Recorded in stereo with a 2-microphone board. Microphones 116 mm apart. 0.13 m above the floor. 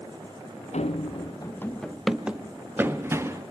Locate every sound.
0.7 s running footsteps: 75° left (ahead or behind), 0.8 m; by 3.4 s 25° right (ahead or behind), 2.5 m